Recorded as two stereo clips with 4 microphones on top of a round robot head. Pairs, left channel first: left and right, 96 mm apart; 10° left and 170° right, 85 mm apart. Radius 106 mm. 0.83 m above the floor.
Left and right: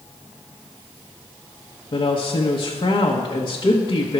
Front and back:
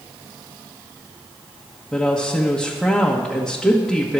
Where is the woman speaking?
95° left, 1.2 m.